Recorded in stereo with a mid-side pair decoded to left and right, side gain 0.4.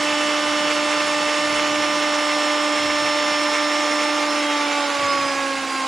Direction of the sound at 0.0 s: 30° right.